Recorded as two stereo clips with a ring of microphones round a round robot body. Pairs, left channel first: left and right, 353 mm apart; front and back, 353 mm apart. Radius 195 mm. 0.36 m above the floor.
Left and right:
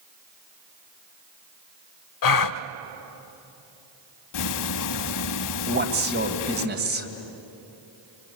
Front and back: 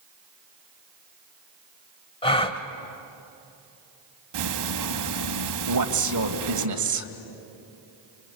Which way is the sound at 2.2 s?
75° left.